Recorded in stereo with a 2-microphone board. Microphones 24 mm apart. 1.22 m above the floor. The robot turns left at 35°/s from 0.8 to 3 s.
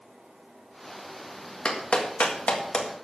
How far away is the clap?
About 1.7 m.